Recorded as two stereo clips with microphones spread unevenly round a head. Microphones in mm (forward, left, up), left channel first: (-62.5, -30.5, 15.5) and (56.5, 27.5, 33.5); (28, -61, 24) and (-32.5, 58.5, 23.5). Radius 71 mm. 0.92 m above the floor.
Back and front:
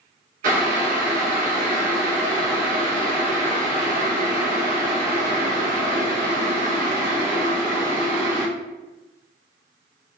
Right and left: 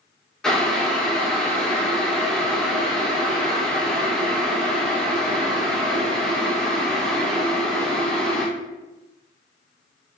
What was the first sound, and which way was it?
Boiling, 20° left.